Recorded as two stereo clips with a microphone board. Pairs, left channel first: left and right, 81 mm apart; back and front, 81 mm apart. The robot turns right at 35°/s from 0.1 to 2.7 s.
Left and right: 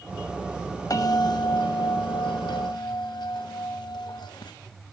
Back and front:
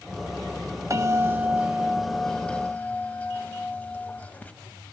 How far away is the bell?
About 0.6 m.